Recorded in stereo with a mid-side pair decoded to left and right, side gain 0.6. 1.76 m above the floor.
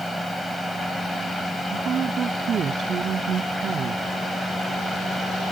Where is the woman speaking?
40° right.